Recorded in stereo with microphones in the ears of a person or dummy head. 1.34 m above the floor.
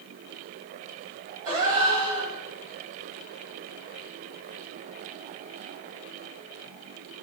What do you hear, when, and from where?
1.4 s a gasp: 15° right (ahead or behind), 0.6 m